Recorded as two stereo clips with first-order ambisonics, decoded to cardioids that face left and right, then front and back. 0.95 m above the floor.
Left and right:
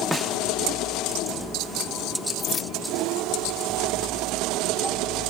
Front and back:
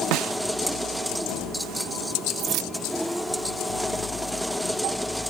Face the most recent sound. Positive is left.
turn(degrees=155)